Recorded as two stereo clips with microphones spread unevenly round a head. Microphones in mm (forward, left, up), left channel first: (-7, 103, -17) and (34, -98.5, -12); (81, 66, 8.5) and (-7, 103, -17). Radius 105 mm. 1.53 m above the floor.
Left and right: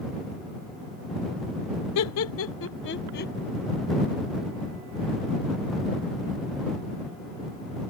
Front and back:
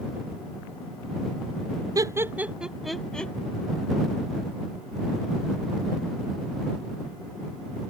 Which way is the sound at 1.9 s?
100° left.